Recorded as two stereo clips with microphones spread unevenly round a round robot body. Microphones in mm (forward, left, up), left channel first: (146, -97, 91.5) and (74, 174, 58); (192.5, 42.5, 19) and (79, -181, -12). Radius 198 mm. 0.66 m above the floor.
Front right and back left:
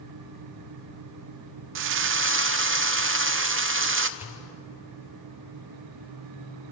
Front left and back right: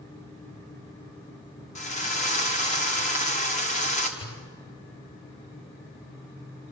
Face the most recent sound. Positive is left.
turn(degrees=25)